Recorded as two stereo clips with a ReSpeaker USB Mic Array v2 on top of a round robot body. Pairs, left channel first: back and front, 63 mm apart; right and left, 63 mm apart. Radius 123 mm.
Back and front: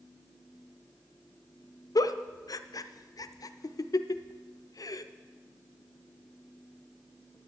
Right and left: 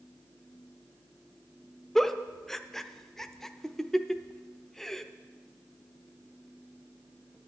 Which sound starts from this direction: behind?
A giggle, at 1.9 s.